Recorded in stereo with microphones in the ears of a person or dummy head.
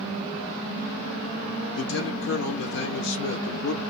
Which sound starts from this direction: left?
A man speaking, at 1.8 s.